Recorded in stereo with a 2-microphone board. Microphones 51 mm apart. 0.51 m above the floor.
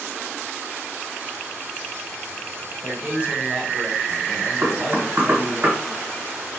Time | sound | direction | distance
2.8 | a man speaking | 30° right (ahead or behind) | 1.6 m
4.6 | knocking | 50° right (ahead or behind) | 1.6 m